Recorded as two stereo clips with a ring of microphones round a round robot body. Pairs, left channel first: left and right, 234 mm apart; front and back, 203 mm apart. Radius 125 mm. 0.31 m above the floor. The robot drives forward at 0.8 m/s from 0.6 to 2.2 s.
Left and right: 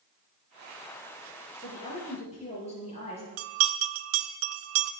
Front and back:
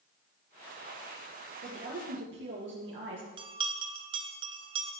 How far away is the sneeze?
No sneeze in this recording.